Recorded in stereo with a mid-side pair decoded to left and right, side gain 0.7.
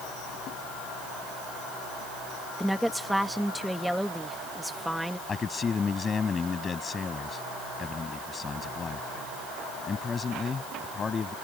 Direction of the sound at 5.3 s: 25° left.